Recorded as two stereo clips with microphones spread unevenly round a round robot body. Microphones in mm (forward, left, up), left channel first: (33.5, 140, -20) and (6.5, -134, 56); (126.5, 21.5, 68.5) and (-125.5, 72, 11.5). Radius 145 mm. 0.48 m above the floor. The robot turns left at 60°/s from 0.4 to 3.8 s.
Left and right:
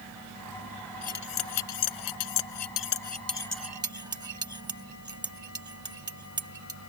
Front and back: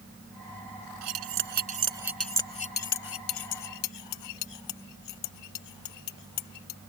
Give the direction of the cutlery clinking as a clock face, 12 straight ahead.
7 o'clock.